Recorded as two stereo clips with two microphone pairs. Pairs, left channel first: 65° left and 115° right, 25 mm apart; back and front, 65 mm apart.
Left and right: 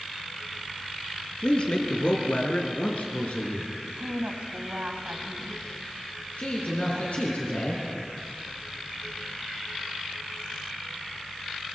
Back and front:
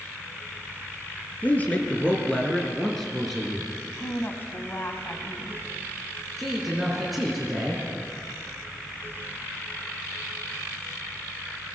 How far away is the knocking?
I don't hear knocking.